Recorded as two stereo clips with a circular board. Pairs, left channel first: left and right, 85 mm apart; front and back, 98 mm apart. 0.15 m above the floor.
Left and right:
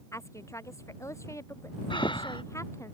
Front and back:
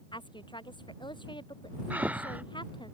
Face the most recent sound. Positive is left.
turn(degrees=105)